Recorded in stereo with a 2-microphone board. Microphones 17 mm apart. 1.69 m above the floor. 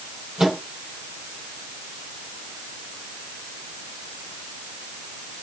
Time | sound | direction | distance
0.4 | a microwave | 40° right (ahead or behind) | 5 m